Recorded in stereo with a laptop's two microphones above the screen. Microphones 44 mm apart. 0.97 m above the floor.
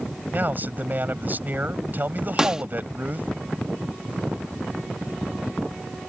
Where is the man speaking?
45° right (ahead or behind).